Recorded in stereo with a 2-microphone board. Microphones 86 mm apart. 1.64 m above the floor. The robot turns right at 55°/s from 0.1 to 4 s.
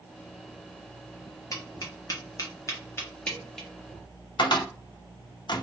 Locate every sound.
1.5 s tapping: 40° left (ahead or behind), 0.9 m; by 3.7 s centre (ahead or behind), 0.9 m
4.4 s a cupboard door: 60° left (ahead or behind), 0.5 m